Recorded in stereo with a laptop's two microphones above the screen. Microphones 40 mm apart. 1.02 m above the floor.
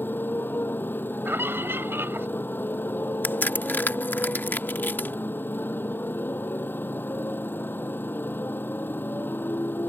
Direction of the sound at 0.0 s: 50° left (ahead or behind).